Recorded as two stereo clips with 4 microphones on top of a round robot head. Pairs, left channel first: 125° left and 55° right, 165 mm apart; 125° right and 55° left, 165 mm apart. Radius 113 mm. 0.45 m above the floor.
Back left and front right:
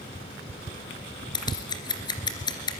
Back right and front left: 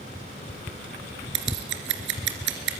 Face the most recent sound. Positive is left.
turn(degrees=60)